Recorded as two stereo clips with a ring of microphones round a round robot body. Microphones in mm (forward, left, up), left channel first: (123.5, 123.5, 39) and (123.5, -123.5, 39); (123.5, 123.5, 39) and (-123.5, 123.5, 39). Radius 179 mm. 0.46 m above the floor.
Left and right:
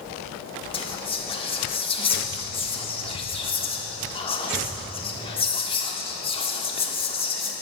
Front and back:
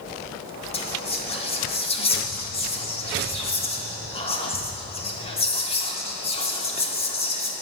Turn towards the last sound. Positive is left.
turn(degrees=45)